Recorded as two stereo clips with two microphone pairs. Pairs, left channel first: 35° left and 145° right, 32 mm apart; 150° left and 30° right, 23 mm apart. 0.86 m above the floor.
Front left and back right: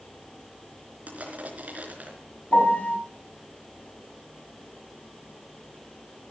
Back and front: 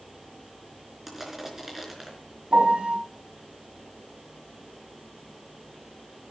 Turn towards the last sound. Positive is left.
turn(degrees=0)